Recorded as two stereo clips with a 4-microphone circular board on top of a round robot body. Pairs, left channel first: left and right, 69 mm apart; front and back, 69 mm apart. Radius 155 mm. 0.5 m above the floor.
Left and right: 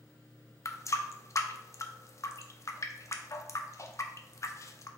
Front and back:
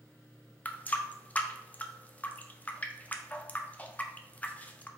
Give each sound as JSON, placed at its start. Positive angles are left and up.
{"t": 0.7, "sound": "a running tap", "azimuth_deg": 60, "distance_m": 0.5}